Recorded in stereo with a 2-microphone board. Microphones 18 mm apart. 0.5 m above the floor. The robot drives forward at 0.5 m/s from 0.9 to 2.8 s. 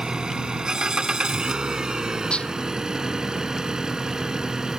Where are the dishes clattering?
70° left (ahead or behind).